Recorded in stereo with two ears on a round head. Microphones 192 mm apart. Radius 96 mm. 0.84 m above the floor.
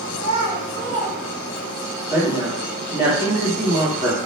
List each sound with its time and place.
0.1 s a child speaking: 65° right (ahead or behind), 0.9 m; by 1.9 s 5° right (ahead or behind), 1.2 m
2.1 s a woman speaking: 25° right (ahead or behind), 1.4 m